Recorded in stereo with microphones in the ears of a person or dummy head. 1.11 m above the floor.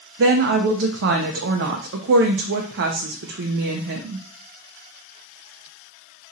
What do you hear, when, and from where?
0.2 s a woman speaking: 60° right (ahead or behind), 0.5 m